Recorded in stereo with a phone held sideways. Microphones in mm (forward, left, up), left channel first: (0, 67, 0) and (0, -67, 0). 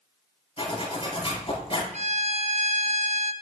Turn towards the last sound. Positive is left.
turn(degrees=-55)  # may be behind; listen again after turning